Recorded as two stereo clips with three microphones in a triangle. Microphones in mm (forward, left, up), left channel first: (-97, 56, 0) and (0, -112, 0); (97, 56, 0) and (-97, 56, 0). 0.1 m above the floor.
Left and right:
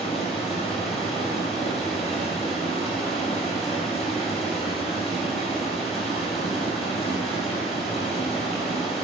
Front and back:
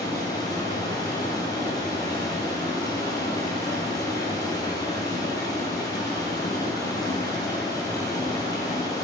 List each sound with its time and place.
0.0 s running water: 70° left, 2 m